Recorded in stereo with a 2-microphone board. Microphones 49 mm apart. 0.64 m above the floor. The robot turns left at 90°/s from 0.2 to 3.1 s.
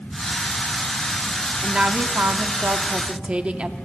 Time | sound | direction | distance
1.6 | a woman speaking | 15° right | 1.1 m